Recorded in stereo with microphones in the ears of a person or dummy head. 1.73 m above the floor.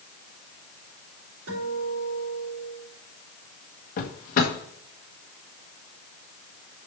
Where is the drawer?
40° left (ahead or behind), 1.2 m.